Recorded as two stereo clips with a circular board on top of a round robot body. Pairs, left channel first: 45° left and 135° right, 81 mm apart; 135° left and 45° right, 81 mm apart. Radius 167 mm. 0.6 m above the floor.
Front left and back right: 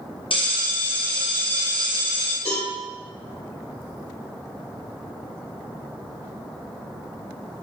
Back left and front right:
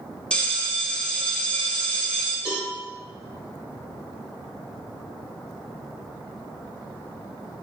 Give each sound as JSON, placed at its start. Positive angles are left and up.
{"t": 0.3, "sound": "a bell", "azimuth_deg": 55, "distance_m": 1.0}
{"t": 2.5, "sound": "a cowbell", "azimuth_deg": 35, "distance_m": 1.4}